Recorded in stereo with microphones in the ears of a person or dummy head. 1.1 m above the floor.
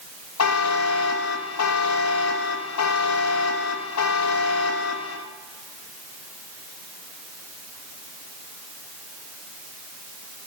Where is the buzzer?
85° left, 0.9 m.